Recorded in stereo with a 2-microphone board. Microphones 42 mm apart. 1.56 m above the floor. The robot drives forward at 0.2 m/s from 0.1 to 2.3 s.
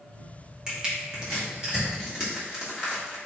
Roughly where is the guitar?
No guitar in this recording.